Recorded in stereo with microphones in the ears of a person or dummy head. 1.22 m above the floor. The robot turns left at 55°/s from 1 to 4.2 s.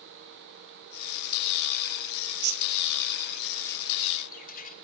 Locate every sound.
2.2 s a bird: 65° right (ahead or behind), 0.8 m; by 4.7 s 35° left (ahead or behind), 0.8 m